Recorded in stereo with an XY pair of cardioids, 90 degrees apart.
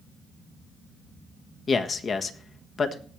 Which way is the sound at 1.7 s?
50° left.